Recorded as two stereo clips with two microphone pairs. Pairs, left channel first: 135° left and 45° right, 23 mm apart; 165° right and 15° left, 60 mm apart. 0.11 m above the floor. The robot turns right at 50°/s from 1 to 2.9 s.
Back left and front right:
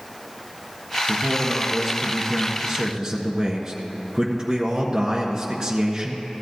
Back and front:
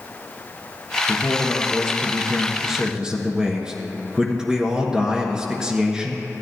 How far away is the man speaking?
About 1.3 m.